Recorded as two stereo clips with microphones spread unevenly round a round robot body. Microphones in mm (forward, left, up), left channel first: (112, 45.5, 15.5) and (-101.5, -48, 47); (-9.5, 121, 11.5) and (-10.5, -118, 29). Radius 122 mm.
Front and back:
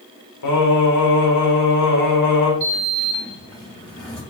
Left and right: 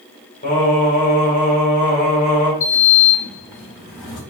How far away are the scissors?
I don't hear scissors.